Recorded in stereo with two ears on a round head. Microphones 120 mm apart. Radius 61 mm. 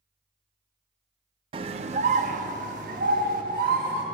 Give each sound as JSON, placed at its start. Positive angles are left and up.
{"t": 1.5, "sound": "a scream", "side_deg": -40, "distance_m": 0.5}